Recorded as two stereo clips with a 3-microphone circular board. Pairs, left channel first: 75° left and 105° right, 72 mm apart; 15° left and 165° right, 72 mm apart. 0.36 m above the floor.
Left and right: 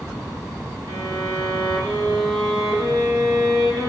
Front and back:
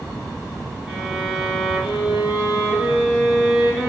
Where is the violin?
85° right, 2 m.